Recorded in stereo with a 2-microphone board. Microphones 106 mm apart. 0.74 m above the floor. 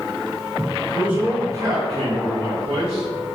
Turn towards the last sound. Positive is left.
turn(degrees=-65)  # may be behind; listen again after turning